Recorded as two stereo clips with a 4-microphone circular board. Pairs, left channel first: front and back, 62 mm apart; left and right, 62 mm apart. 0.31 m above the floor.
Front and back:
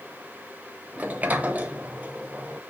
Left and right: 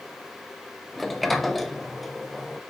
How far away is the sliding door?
About 0.5 m.